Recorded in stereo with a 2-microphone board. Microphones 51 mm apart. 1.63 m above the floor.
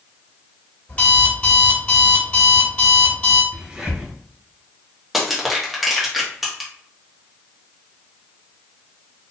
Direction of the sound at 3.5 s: 20° right (ahead or behind).